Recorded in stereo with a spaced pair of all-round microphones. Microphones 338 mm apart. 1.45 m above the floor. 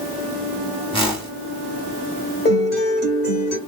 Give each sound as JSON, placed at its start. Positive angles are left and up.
{"t": 0.9, "sound": "a whoosh", "side_deg": 15, "distance_m": 1.1}
{"t": 2.5, "sound": "a guitar", "side_deg": 30, "distance_m": 1.4}